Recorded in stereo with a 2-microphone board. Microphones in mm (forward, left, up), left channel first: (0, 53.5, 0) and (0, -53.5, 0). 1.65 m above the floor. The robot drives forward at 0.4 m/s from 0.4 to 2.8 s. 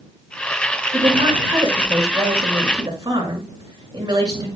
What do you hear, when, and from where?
0.9 s a woman speaking: 45° right (ahead or behind), 5.5 m; by 4.5 s 40° right (ahead or behind), 6 m